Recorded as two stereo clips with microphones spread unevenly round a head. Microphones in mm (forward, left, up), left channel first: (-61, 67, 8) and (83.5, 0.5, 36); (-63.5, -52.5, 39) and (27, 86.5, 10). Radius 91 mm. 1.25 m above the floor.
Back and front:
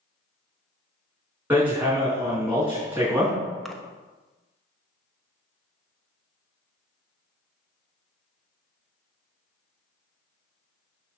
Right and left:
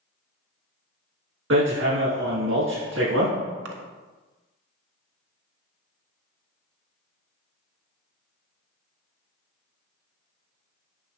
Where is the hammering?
50° left, 5.5 m.